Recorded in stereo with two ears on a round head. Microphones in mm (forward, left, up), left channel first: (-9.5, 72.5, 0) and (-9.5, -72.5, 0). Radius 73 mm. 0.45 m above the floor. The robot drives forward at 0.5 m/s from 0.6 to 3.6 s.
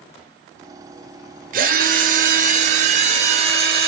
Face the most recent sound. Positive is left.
turn(degrees=-40)  # may be behind; listen again after turning